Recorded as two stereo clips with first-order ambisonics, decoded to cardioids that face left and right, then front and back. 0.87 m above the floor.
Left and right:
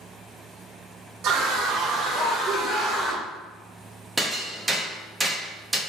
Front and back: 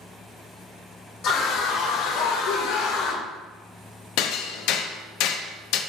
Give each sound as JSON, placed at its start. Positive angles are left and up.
{"t": 1.2, "sound": "a scream", "azimuth_deg": -45, "distance_m": 1.8}
{"t": 4.2, "sound": "hammering", "azimuth_deg": -10, "distance_m": 0.8}